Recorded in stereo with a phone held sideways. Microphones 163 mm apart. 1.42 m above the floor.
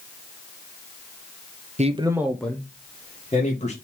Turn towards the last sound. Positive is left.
turn(degrees=40)  # may be behind; listen again after turning